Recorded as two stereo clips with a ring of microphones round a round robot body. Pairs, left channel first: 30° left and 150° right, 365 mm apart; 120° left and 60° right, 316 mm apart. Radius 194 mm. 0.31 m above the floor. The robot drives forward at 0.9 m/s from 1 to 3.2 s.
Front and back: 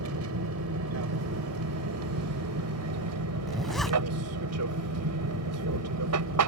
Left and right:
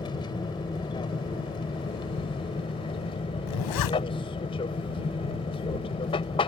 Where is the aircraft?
170° right.